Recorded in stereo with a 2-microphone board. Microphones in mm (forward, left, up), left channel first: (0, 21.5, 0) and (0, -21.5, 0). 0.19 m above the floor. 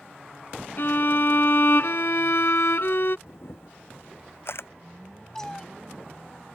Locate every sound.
0.8 s a violin: 60° left (ahead or behind)
3.3 s a camera shutter: 60° left (ahead or behind)
5.3 s a cat meowing: 10° left (ahead or behind)